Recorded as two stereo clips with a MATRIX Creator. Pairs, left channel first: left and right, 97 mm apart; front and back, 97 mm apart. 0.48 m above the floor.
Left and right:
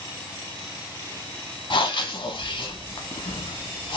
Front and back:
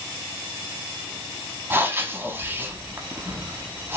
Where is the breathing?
115° left, 0.6 m.